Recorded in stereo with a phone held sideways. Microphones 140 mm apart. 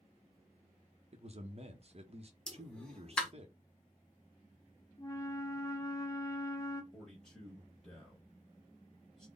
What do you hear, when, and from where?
1.1 s a man speaking: 50° right (ahead or behind), 0.9 m
2.5 s a pop: 5° left (ahead or behind), 1.0 m
5.0 s a flute: 25° left (ahead or behind), 0.7 m
6.9 s a man speaking: 5° left (ahead or behind), 1.6 m